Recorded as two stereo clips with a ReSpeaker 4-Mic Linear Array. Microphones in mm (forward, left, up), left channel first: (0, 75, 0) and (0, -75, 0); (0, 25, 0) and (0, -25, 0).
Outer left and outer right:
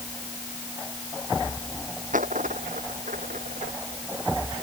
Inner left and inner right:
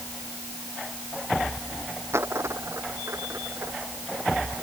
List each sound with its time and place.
2.1 s a dropped coin: 60° right (ahead or behind)